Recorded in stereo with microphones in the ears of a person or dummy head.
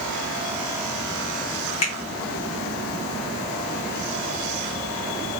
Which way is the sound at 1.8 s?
30° left (ahead or behind).